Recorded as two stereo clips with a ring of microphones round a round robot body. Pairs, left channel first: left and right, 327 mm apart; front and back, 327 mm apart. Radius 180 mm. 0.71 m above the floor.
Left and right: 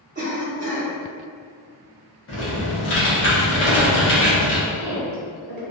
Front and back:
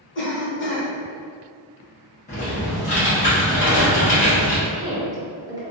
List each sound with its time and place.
0.1 s a cough: 35° right, 1.2 m
2.3 s typing on a keyboard: 60° left, 0.8 m
4.7 s a woman speaking: 105° right, 0.9 m